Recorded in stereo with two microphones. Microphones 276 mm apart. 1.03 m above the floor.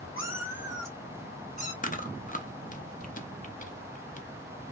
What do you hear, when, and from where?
0.2 s a cat meowing: 55° left (ahead or behind), 1.2 m; by 1.7 s 25° left (ahead or behind), 1.7 m
1.8 s chewing: 30° left (ahead or behind), 0.7 m